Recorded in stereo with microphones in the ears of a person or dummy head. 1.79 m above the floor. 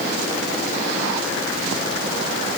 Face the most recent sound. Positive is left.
No sound to turn to.